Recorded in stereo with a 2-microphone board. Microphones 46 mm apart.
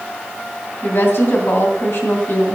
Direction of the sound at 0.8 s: 60° left (ahead or behind).